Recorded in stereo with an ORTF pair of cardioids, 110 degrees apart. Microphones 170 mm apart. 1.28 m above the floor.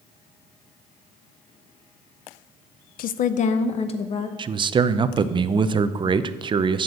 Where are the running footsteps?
No running footsteps in this recording.